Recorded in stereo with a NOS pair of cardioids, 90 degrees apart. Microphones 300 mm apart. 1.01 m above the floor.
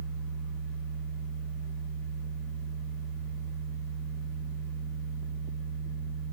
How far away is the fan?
About 1.1 m.